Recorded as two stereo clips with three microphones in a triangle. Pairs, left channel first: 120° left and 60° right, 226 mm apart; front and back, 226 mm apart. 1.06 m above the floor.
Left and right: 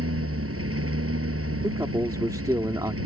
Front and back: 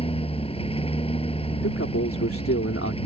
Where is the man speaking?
15° left.